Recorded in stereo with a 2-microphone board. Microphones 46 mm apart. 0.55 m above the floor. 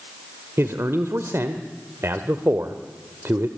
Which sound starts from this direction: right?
A man speaking, at 0.6 s.